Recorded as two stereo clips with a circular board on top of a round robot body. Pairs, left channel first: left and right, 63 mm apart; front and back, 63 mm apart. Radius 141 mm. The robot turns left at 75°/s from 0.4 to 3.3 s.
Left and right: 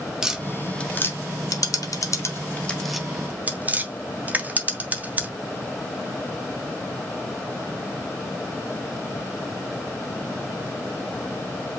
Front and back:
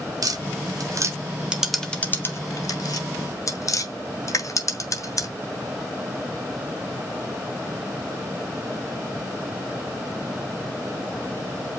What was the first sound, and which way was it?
Tapping, 170° right.